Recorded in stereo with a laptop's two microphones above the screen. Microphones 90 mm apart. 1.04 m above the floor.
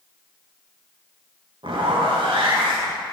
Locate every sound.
1.6 s a zipper: 70° right (ahead or behind), 1.5 m